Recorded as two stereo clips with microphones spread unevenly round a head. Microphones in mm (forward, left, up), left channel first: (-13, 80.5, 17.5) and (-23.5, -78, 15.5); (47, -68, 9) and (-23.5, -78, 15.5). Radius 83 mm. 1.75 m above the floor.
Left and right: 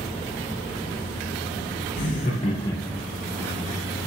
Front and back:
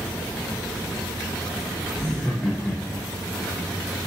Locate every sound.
2.0 s laughter: 105° left, 0.8 m; by 3.1 s 15° right, 0.6 m